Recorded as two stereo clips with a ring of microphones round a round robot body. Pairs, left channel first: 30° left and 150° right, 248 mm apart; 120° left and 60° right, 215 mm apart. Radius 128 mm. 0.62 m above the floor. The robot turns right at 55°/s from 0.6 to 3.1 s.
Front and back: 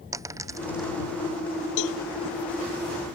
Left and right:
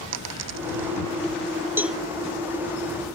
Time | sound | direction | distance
0.1 | a dropped coin | 70° right | ?
1.8 | a cowbell | 20° left | ?